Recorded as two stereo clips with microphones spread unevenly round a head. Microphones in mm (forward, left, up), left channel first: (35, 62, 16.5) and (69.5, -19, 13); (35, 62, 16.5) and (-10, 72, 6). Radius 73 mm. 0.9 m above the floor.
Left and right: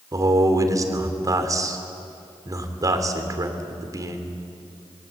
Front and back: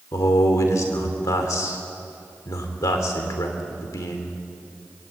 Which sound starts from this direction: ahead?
A man speaking, at 0.1 s.